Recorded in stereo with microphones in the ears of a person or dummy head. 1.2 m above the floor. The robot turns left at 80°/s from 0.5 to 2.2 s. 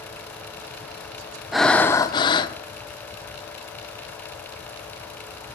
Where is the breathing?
Centre (ahead or behind), 0.6 m; by 2.5 s 20° left (ahead or behind), 0.6 m.